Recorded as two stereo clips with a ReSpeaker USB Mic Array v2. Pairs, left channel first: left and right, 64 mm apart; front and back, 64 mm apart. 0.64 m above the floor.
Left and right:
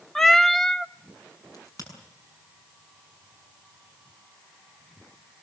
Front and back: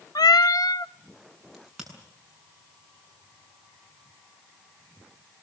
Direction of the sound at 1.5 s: 90° left.